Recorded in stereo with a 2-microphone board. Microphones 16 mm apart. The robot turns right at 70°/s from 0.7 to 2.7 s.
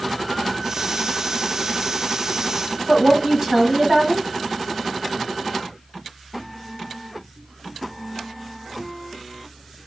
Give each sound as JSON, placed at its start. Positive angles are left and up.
{"t": 2.9, "sound": "a woman speaking", "side_deg": -35, "distance_m": 1.2}